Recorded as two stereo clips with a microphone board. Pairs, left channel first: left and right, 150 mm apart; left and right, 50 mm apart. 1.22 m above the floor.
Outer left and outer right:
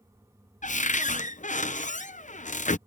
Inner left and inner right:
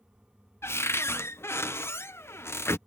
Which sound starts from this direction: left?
A cupboard door, at 0.6 s.